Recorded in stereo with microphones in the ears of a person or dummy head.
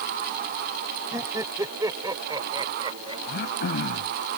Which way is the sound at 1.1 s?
15° right (ahead or behind).